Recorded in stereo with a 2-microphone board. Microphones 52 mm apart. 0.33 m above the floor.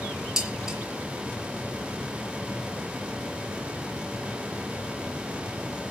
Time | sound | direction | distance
0.4 | dishes clattering | 15° right (ahead or behind) | 5 m